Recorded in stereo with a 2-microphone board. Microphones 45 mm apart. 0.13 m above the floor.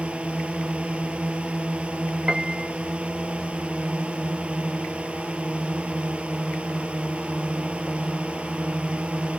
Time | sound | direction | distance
0.0 | a drone | 30° right (ahead or behind) | ?
2.3 | a piano | 15° right (ahead or behind) | ?